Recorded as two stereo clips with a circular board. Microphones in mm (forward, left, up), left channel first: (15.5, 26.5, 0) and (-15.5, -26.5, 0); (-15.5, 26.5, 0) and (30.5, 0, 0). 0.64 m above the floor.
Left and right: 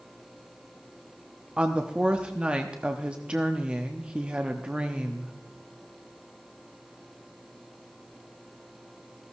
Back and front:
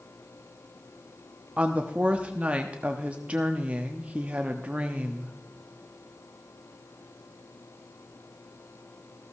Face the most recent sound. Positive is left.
turn(degrees=-65)